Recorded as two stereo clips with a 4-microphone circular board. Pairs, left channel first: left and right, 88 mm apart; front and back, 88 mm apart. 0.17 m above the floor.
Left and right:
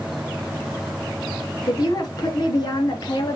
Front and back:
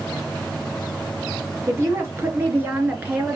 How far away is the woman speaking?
About 3.5 m.